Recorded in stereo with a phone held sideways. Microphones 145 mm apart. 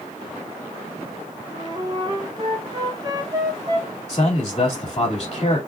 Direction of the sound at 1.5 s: 30° right (ahead or behind).